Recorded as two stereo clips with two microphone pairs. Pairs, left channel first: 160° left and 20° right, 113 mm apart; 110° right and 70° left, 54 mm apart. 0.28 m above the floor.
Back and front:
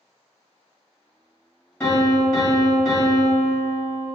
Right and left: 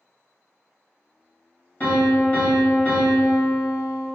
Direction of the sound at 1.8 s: 130° right.